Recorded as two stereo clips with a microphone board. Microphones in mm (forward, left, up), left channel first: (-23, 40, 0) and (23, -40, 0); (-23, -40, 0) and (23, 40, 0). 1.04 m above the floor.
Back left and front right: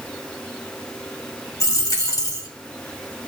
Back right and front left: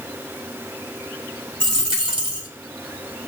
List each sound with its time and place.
1.6 s a dropped coin: 70° left, 1.8 m